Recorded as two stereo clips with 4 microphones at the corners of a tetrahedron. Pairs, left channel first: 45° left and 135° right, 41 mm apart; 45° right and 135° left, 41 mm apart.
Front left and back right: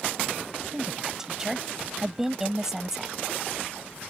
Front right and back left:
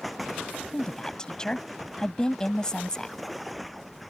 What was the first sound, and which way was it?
A woman speaking, 75° right.